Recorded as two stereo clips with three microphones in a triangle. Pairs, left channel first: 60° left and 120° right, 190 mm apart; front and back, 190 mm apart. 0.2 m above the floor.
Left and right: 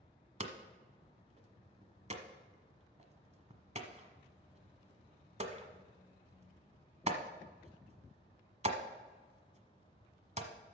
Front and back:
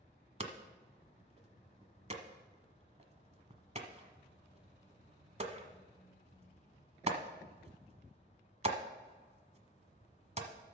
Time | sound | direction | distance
0.4 | hammering | 150° right | 1.2 m